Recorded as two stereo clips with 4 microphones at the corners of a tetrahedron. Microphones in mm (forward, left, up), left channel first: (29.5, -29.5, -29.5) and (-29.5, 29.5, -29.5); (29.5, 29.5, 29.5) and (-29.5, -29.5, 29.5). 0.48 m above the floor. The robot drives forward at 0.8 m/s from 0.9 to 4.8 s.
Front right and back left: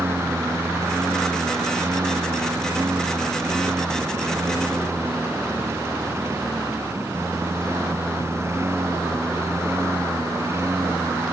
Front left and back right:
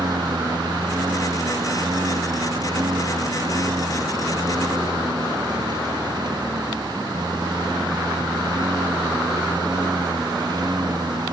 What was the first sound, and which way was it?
A lawn mower, 165° right.